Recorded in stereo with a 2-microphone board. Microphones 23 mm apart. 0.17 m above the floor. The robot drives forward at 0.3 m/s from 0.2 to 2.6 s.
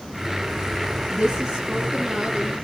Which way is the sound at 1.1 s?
35° right (ahead or behind).